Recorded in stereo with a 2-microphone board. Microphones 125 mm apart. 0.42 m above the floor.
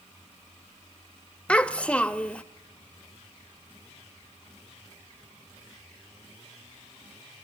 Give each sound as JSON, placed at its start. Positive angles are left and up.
{"t": 1.5, "sound": "a child speaking", "side_deg": 10, "distance_m": 0.8}